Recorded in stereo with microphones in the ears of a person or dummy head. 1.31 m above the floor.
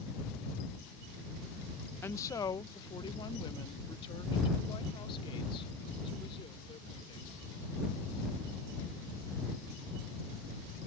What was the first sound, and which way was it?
A woman speaking, 15° left (ahead or behind).